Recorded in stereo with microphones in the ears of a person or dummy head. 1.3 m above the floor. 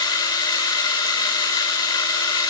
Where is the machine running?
20° left (ahead or behind), 2.5 m.